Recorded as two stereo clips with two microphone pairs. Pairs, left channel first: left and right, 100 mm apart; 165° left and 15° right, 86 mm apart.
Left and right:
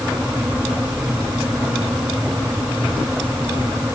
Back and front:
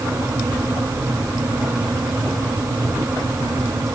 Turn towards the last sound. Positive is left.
No sound to turn to.